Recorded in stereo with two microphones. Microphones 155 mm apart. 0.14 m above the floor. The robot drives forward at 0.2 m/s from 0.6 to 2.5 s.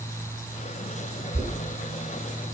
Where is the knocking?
20° right (ahead or behind), 0.8 m.